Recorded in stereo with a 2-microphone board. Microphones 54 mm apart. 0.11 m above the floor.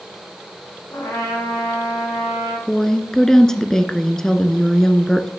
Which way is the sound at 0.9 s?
60° left (ahead or behind).